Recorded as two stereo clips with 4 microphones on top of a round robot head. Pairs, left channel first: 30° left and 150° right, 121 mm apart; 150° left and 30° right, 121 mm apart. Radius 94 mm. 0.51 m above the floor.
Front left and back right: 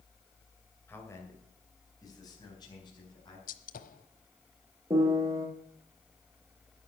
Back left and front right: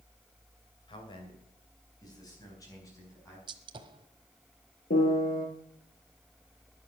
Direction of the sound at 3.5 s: 20° left.